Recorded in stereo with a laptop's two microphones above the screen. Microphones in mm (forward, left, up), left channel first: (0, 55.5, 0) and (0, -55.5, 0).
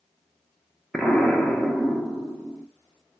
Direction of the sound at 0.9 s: 5° left (ahead or behind).